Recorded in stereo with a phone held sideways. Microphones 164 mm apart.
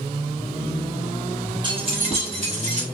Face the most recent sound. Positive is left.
turn(degrees=-45)  # may be behind; listen again after turning